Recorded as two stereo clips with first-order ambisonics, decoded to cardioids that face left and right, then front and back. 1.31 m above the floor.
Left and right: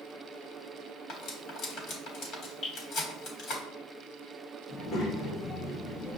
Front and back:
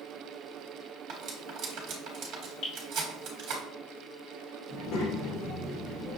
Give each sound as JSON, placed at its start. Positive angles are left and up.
{"t": 1.1, "sound": "cutlery clinking", "azimuth_deg": 135, "distance_m": 1.2}
{"t": 2.6, "sound": "dripping", "azimuth_deg": 35, "distance_m": 2.0}
{"t": 4.7, "sound": "a child speaking", "azimuth_deg": 35, "distance_m": 1.4}